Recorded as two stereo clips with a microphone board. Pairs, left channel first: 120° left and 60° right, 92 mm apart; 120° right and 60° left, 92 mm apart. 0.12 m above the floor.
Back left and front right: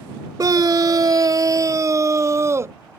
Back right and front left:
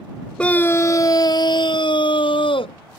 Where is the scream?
50° right; by 2.8 s 120° right.